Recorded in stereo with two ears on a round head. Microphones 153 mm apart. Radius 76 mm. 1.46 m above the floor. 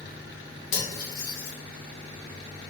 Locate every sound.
0.7 s cutlery clinking: 50° left (ahead or behind), 1.4 m